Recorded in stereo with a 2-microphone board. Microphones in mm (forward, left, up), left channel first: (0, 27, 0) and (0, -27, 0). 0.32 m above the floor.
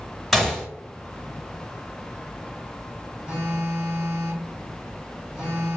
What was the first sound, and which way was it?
A gunshot, centre (ahead or behind).